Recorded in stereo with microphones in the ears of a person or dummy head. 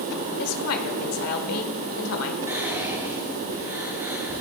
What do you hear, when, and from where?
0.4 s a woman speaking: 85° left, 1.7 m
2.5 s whispering: 15° right (ahead or behind), 3.5 m